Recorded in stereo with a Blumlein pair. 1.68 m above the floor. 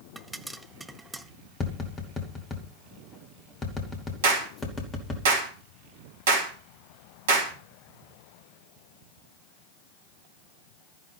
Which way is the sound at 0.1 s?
5° right.